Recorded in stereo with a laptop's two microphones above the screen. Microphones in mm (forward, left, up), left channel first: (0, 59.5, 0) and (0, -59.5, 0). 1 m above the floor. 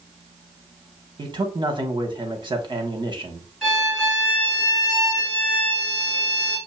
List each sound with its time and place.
1.2 s a man speaking: 40° right (ahead or behind), 0.9 m
3.6 s a violin: 5° right (ahead or behind), 2.5 m